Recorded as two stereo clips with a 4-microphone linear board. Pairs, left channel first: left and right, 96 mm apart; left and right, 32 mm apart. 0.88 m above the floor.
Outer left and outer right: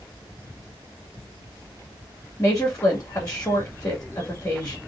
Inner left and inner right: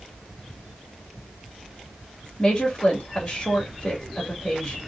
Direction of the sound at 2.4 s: 30° left (ahead or behind).